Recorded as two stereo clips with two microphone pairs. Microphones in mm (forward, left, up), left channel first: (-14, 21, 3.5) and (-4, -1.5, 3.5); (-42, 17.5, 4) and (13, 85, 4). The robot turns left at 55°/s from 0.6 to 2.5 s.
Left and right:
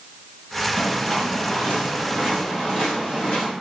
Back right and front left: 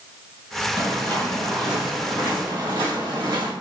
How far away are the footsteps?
About 2.0 m.